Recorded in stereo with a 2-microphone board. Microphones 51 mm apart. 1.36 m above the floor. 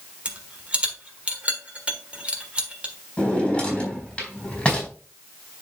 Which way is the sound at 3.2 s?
20° left (ahead or behind).